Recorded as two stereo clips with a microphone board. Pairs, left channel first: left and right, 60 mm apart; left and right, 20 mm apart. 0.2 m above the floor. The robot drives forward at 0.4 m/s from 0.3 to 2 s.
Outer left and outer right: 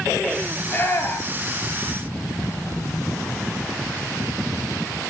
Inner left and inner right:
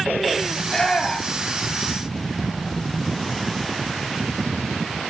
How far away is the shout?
About 4 m.